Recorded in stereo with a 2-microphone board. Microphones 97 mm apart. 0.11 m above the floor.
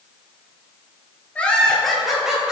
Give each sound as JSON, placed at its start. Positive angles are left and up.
{"t": 1.4, "sound": "laughter", "side_deg": 15, "distance_m": 1.9}